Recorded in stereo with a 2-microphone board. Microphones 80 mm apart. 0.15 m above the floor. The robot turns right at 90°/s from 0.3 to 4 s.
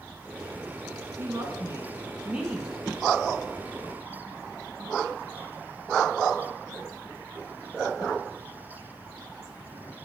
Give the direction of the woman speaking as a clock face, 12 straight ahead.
4 o'clock.